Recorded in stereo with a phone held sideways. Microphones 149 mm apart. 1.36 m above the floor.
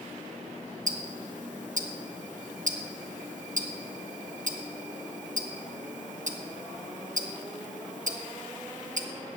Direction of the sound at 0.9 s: 60° right (ahead or behind).